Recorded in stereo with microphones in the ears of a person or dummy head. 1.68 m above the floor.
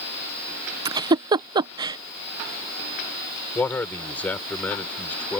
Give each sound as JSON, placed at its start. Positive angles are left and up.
{"t": 0.8, "sound": "a giggle", "side_deg": -25}
{"t": 3.5, "sound": "a man speaking", "side_deg": 20}